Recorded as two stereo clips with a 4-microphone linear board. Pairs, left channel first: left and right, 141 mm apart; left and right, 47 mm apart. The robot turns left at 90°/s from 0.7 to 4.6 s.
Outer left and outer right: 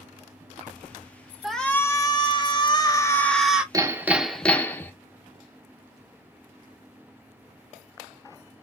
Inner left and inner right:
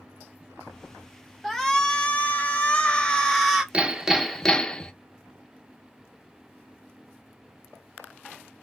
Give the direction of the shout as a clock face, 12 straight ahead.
6 o'clock.